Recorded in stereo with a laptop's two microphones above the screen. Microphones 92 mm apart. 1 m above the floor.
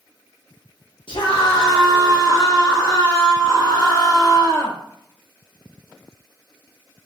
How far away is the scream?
About 0.7 m.